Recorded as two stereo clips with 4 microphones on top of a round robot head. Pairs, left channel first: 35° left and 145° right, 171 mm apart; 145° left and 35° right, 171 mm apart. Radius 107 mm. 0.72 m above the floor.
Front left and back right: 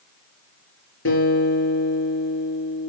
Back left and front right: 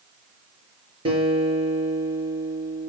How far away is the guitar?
About 6 m.